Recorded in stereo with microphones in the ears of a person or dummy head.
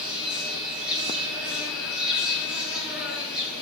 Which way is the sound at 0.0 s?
5° right (ahead or behind).